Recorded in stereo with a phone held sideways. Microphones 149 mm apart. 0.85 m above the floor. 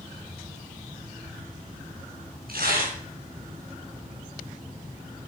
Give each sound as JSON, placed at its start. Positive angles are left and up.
{"t": 2.5, "sound": "tearing paper", "side_deg": -85, "distance_m": 3.5}